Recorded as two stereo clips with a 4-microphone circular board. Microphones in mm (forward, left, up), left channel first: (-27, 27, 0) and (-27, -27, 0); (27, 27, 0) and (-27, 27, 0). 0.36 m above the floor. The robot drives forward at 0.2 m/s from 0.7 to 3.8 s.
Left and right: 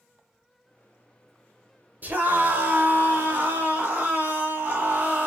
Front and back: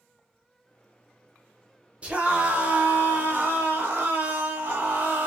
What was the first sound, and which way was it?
A scream, 125° right.